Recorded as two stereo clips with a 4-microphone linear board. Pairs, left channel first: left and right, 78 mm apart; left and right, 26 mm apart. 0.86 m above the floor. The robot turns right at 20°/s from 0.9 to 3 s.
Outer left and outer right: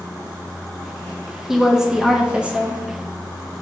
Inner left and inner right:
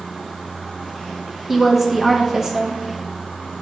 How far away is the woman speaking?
About 0.6 m.